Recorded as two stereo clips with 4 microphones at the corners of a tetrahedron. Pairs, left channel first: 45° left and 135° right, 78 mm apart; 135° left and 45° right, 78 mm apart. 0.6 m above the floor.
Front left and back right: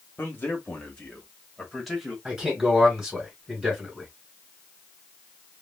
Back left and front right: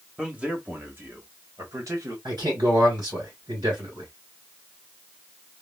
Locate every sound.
0.2 s a man speaking: 20° left, 1.1 m; by 2.1 s 45° right, 1.5 m
2.2 s a man speaking: 55° right, 2.5 m